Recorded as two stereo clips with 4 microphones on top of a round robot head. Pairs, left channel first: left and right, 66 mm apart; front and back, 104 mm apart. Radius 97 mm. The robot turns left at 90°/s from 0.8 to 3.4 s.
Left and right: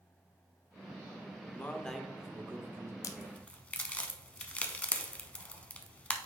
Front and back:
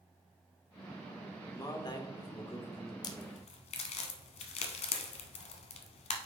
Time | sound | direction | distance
1.5 | a man speaking | 45° left | 1.2 m
3.0 | a crack | 55° left | 0.6 m